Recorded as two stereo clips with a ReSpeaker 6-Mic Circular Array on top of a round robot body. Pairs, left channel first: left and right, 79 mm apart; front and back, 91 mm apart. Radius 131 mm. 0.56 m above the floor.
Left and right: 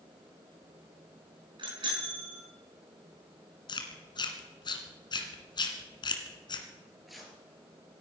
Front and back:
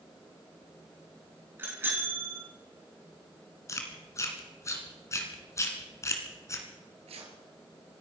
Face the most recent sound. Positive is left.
turn(degrees=180)